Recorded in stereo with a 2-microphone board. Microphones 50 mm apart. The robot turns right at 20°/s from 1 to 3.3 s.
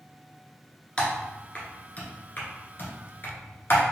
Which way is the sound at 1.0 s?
15° left (ahead or behind).